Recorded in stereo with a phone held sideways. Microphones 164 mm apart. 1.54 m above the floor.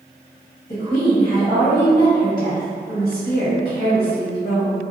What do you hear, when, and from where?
0.7 s a woman speaking: 50° left (ahead or behind), 1.1 m